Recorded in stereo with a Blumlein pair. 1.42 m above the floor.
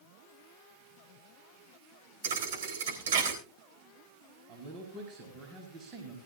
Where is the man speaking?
30° right, 4.5 m.